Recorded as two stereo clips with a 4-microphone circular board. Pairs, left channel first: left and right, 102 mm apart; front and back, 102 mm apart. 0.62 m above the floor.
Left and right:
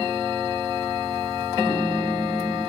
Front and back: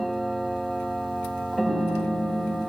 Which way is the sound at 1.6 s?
160° left.